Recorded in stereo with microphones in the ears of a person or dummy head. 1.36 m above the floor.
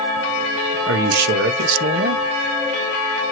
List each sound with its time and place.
0.9 s a man speaking: 65° right (ahead or behind), 0.9 m